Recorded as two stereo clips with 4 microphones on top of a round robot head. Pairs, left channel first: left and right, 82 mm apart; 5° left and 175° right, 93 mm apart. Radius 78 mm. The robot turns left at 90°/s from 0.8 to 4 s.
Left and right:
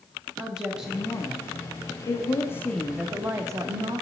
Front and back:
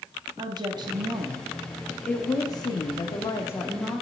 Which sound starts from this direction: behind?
A woman speaking, at 0.4 s.